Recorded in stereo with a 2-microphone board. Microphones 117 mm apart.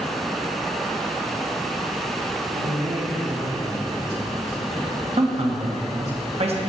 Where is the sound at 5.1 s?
60° right (ahead or behind), 0.8 m.